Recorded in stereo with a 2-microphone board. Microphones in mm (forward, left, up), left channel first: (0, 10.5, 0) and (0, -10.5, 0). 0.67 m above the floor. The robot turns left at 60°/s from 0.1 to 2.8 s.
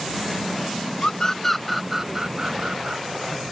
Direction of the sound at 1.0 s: 40° left (ahead or behind).